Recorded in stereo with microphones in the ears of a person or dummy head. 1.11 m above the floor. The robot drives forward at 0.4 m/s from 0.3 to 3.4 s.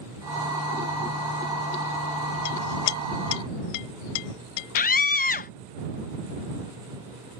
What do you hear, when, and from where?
2.5 s a clink: 85° left; by 5.5 s 65° left (ahead or behind)
4.8 s a scream: 40° left (ahead or behind)